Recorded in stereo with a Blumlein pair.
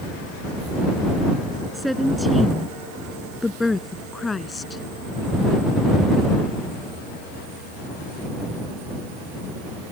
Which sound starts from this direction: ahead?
A woman speaking, at 1.7 s.